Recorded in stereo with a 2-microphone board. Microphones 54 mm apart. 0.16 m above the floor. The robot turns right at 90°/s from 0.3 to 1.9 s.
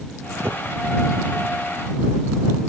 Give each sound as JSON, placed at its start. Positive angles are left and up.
{"t": 0.4, "sound": "a whoosh", "side_deg": -50}